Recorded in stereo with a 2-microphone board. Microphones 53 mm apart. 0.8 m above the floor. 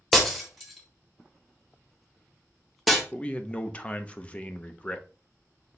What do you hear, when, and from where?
0.1 s breaking glass: centre (ahead or behind), 1.2 m
3.1 s a man speaking: 25° left (ahead or behind), 0.6 m